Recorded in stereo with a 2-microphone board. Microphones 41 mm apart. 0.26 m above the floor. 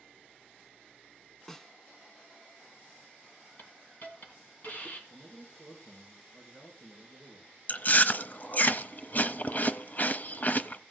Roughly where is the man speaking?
Left.